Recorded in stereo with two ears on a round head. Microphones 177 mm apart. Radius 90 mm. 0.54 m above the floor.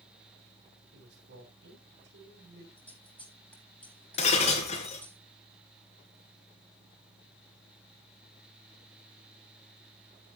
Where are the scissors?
10° left (ahead or behind), 8 m.